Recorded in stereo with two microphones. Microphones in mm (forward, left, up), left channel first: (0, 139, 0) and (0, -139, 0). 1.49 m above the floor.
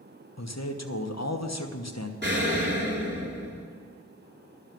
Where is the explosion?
40° right (ahead or behind), 3.5 m.